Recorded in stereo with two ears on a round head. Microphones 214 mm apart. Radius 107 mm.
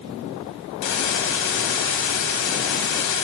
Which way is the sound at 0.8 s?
55° left (ahead or behind).